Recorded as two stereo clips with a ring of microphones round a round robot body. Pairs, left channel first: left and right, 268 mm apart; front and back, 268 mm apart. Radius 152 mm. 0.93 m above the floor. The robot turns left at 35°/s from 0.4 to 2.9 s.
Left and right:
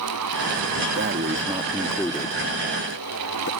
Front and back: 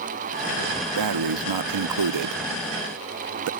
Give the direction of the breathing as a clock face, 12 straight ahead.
5 o'clock.